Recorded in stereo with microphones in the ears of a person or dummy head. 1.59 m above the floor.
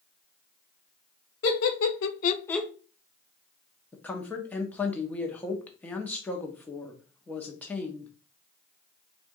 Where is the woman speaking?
10° left (ahead or behind), 1.1 m.